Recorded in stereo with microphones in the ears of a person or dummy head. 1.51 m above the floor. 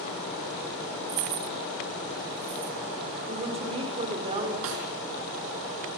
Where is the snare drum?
80° right, 6 m.